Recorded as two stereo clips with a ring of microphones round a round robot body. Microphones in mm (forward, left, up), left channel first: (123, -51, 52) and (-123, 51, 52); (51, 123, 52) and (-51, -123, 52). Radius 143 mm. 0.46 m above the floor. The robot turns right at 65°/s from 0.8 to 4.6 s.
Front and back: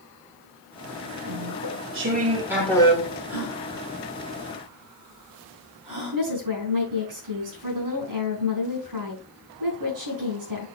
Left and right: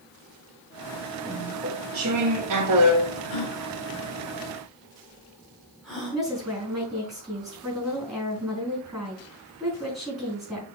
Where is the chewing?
160° left, 1.6 m; by 3.2 s 75° right, 1.6 m.